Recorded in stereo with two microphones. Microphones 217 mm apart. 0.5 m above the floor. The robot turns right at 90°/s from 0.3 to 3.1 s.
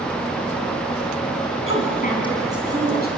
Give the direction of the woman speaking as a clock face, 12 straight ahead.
8 o'clock.